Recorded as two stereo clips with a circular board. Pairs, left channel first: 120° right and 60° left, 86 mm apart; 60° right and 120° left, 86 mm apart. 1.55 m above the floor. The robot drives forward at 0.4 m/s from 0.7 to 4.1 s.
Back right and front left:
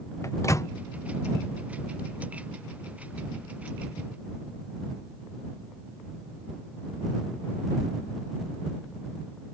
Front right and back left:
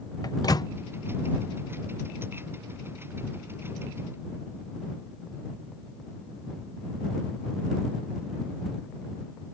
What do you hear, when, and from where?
0.2 s a microwave: 80° right